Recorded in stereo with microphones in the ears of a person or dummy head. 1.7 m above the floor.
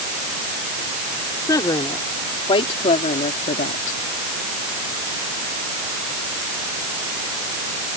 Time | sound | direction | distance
1.5 | a woman speaking | 15° left (ahead or behind) | ?